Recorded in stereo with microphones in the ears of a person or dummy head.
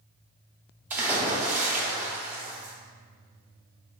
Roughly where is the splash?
Centre.